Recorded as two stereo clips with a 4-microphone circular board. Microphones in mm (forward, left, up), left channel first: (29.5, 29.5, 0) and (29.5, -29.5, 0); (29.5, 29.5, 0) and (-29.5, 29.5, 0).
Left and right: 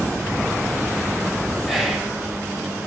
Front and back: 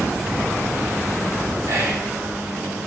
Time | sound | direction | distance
1.7 | whispering | 175° right | 3.5 m